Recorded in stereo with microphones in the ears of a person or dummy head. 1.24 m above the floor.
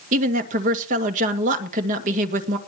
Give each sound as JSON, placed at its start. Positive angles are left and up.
{"t": 0.1, "sound": "a woman speaking", "side_deg": -40, "distance_m": 2.0}